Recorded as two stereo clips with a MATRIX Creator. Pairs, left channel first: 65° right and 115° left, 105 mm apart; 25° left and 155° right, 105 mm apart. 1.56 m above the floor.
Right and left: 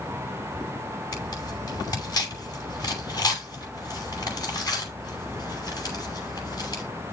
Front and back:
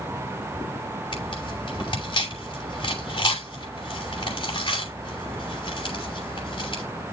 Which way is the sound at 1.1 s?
15° right.